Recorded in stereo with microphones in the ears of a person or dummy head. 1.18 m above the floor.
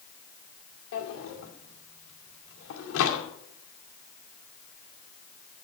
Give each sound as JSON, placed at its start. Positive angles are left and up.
{"t": 0.9, "sound": "a drawer", "side_deg": 80, "distance_m": 2.0}